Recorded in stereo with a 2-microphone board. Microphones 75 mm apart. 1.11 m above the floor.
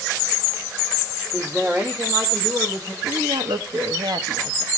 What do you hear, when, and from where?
1.3 s a woman speaking: 30° right (ahead or behind), 2 m; by 2.9 s 65° right (ahead or behind), 3.5 m
3.0 s a woman speaking: 70° right (ahead or behind), 1.3 m